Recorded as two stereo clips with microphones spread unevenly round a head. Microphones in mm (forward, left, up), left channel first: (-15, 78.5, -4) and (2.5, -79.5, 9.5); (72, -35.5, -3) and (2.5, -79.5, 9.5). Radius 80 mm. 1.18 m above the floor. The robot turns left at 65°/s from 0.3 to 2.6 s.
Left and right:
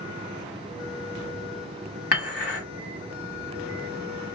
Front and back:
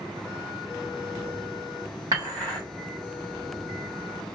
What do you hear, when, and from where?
2.1 s dishes clattering: 140° left, 1.5 m; by 2.6 s 110° left, 1.5 m